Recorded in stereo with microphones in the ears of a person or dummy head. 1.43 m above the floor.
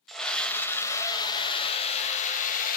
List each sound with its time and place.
0.1 s a scream: 5° left (ahead or behind), 2 m; by 2.8 s 45° left (ahead or behind), 2.5 m